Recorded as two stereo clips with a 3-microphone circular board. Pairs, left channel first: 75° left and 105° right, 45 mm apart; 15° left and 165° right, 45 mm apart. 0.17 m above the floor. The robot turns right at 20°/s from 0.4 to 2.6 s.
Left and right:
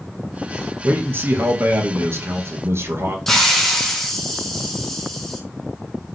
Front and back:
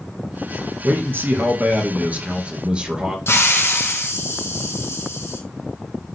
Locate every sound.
0.8 s a man speaking: 140° right, 2 m; by 3.2 s 105° right, 2 m
3.3 s a hiss: 10° right, 2 m